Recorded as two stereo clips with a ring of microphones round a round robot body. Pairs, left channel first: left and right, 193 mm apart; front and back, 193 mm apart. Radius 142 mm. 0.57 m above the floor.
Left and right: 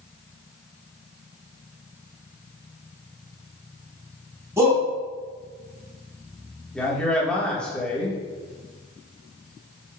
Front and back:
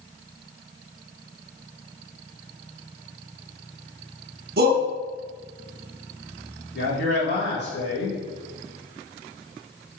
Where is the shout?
165° right, 1.0 m.